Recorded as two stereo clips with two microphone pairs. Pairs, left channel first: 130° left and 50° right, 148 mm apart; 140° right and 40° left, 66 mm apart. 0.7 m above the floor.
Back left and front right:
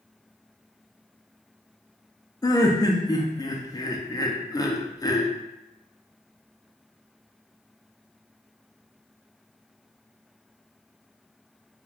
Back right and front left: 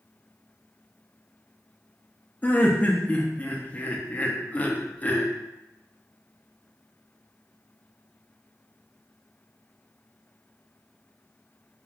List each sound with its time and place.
2.4 s laughter: 175° left, 0.5 m